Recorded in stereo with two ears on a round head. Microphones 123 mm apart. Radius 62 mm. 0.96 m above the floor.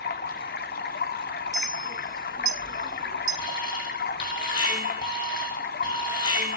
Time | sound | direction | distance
0.0 | running water | 75° left (ahead or behind) | 1.1 m
1.5 | a clink | 25° right (ahead or behind) | 5 m
3.4 | an alarm | 35° left (ahead or behind) | 4.5 m